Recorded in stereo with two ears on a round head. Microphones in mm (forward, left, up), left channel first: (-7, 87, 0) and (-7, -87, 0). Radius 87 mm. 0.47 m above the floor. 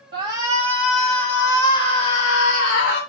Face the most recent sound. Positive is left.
turn(degrees=50)  # may be behind; listen again after turning